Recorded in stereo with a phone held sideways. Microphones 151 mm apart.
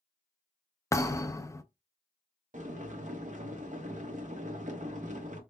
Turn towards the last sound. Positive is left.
turn(degrees=-55)  # may be behind; listen again after turning